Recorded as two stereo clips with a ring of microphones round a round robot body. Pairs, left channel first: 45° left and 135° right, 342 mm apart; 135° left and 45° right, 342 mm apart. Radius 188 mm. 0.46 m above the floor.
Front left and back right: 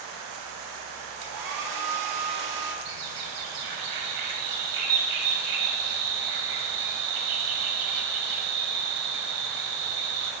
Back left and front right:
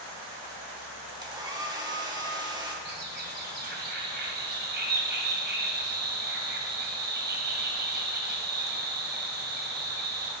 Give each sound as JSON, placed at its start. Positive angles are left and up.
{"t": 1.2, "sound": "a hair dryer", "azimuth_deg": -120, "distance_m": 1.5}
{"t": 2.9, "sound": "a bird", "azimuth_deg": -110, "distance_m": 1.8}